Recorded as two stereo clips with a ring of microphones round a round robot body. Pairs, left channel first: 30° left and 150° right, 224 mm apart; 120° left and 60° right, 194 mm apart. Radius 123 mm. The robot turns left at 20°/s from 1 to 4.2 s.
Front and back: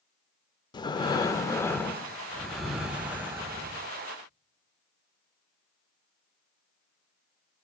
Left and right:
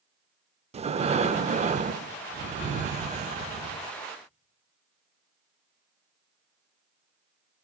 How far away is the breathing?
About 0.5 m.